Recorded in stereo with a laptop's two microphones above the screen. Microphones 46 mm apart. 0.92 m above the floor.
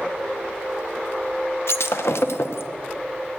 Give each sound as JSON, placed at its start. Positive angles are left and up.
{"t": 1.7, "sound": "breaking glass", "side_deg": 70, "distance_m": 0.7}